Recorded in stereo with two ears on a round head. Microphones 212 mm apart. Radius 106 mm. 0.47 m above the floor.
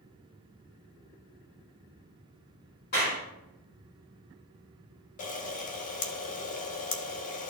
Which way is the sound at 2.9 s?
40° left (ahead or behind).